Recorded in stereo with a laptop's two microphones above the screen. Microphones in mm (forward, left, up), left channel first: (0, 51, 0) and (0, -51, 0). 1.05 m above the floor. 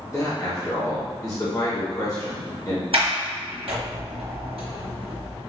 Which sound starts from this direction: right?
A sliding door, at 2.9 s.